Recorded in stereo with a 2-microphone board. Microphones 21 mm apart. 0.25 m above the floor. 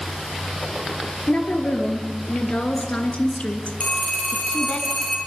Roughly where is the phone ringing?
Left.